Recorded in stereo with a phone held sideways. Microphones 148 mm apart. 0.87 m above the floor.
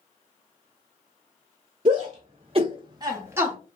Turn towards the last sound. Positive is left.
turn(degrees=-10)  # may be behind; listen again after turning